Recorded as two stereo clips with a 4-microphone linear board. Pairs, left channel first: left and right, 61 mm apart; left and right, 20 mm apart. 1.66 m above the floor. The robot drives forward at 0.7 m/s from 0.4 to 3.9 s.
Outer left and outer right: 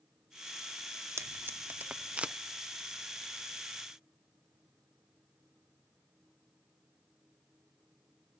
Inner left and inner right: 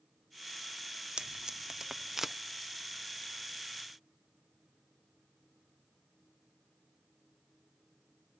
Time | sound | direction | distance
1.2 | tape being pulled | 55° right (ahead or behind) | ?